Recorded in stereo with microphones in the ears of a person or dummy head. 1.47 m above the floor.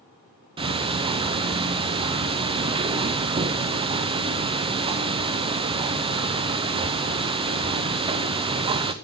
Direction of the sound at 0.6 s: 30° right (ahead or behind).